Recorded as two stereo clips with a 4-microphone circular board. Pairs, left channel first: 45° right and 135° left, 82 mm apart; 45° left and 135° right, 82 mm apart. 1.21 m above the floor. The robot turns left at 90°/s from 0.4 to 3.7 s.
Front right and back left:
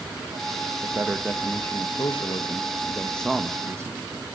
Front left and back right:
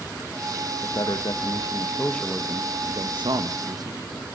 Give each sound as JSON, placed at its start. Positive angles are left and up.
{"t": 0.8, "sound": "a man speaking", "azimuth_deg": 90, "distance_m": 1.5}